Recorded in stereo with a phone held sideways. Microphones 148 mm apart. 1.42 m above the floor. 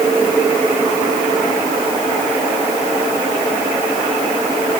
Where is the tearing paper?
No tearing paper in this recording.